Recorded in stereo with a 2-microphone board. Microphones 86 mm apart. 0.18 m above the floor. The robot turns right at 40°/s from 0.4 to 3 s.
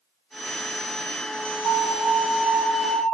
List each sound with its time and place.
1.6 s an alarm: 60° right, 2.5 m; by 3.0 s 5° right, 2.5 m